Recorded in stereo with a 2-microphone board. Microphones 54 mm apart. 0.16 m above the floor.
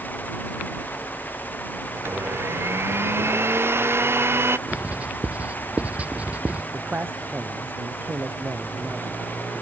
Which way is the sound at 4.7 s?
30° right (ahead or behind).